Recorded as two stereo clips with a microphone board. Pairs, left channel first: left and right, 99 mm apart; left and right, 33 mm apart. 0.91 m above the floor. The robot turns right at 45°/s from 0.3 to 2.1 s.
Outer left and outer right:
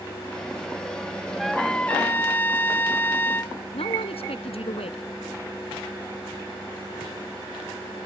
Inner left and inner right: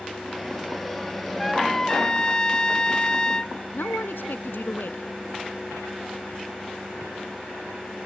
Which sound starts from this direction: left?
A man speaking, at 3.7 s.